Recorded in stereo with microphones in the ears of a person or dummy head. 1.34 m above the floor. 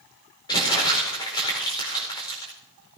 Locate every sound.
0.5 s crumpling: 20° left (ahead or behind), 5 m